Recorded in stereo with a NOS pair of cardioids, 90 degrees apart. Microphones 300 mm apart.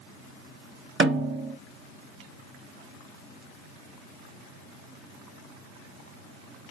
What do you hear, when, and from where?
1.0 s a snare drum: 40° right, 1.7 m